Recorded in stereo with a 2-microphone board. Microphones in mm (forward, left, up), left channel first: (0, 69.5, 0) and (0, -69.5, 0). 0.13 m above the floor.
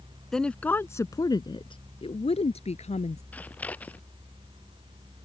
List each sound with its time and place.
0.3 s a woman speaking: 5° left (ahead or behind); by 3.2 s 55° left (ahead or behind)
3.3 s scissors: 10° left (ahead or behind)